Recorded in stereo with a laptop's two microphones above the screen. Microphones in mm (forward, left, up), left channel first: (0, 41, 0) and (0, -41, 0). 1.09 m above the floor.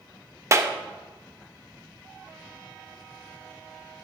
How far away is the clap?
About 0.9 m.